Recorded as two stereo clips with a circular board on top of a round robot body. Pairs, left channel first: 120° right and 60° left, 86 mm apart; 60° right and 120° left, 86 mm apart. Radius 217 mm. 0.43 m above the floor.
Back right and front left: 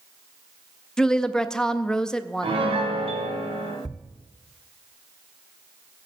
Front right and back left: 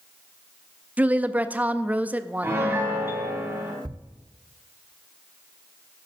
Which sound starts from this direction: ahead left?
A piano, at 2.4 s.